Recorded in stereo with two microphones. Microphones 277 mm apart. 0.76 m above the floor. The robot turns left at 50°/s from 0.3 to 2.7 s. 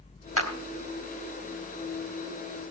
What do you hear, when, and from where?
0.4 s a clap: 55° right (ahead or behind), 2.5 m; by 0.5 s 60° right (ahead or behind), 2.5 m